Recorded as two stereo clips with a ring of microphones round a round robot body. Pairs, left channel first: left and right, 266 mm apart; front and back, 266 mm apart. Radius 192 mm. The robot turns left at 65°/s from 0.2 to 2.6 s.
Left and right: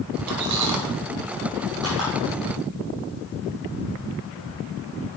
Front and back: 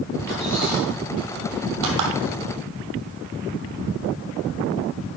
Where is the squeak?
70° right, 1.5 m; by 2.1 s 170° left, 1.5 m.